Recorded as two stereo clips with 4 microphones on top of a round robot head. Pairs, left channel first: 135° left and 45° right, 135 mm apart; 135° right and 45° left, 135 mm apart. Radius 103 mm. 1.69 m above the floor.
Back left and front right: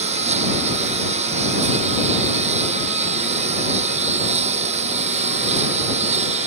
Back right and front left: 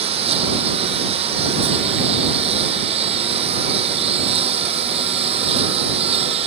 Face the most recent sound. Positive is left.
turn(degrees=-5)